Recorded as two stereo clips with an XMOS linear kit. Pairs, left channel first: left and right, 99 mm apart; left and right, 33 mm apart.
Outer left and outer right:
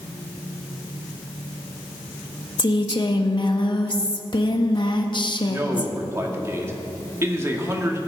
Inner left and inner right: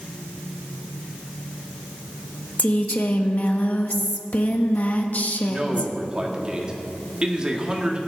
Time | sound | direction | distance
2.6 | a woman speaking | 50° left (ahead or behind) | 1.0 m
5.5 | a man speaking | 30° right (ahead or behind) | 1.7 m